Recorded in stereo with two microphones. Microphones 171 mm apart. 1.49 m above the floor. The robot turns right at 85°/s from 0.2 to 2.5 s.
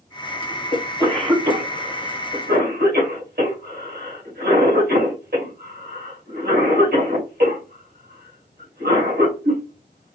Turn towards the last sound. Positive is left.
turn(degrees=-65)  # may be behind; listen again after turning